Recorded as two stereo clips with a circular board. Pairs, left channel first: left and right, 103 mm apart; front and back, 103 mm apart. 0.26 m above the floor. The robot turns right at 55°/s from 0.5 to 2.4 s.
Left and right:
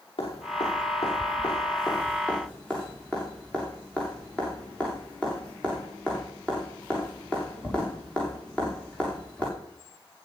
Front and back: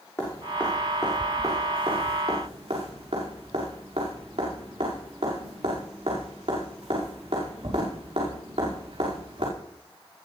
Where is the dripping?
65° left, 9 m; by 9.5 s 170° left, 9 m.